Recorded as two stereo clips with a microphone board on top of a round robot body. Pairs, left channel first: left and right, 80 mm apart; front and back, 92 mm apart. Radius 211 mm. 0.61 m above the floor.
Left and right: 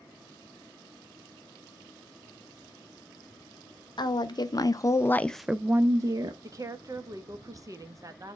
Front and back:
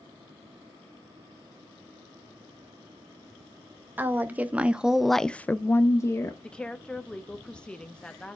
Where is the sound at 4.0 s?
110° left, 0.9 m; by 6.3 s 55° right, 0.8 m.